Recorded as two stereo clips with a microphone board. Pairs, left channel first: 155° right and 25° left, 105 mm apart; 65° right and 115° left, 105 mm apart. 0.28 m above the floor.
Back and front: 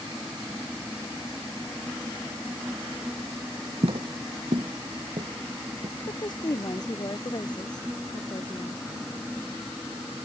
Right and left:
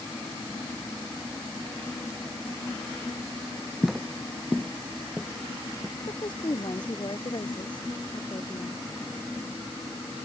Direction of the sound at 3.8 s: 30° left.